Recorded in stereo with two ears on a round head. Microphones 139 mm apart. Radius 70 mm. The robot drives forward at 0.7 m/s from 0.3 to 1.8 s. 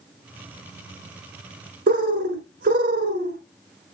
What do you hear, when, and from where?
1.9 s a bird: 70° right (ahead or behind), 1.0 m